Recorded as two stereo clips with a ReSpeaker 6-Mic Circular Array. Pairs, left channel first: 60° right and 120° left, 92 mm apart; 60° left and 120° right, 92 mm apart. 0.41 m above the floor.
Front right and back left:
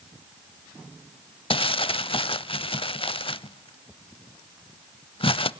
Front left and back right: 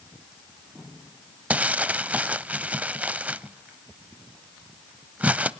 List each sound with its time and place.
1.5 s crumpling: 45° right, 0.5 m